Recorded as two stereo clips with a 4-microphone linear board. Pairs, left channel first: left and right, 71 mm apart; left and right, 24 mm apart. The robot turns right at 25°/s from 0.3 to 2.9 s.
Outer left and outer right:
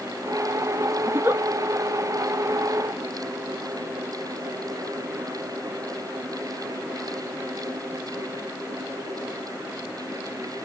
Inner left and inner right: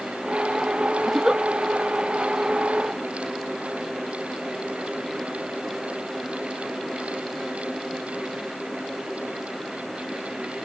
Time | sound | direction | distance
1.1 | a giggle | 30° right (ahead or behind) | 0.5 m